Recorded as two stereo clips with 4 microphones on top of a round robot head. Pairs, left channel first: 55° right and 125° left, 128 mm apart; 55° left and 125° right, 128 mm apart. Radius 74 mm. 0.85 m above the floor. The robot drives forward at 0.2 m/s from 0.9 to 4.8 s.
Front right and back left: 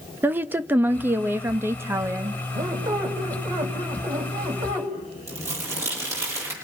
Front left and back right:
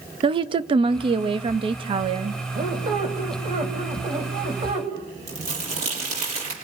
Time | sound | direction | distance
0.2 | a woman speaking | 165° right | 1.0 m
2.5 | a squeak | 175° right | 3.5 m
5.3 | crumpling | 165° right | 6.5 m